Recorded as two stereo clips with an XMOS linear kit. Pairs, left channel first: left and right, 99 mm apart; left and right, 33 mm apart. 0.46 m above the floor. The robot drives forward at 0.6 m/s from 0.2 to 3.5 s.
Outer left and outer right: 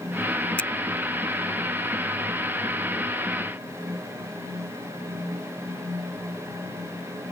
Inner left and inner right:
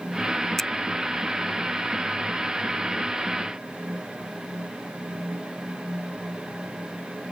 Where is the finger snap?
10° left (ahead or behind).